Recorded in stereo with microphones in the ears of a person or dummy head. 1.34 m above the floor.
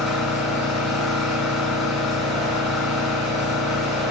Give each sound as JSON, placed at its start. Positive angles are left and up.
{"t": 0.0, "sound": "an engine running", "side_deg": 0, "distance_m": 1.0}